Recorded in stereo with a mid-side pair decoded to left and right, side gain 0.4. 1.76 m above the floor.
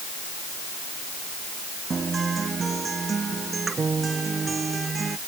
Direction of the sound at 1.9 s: 40° right.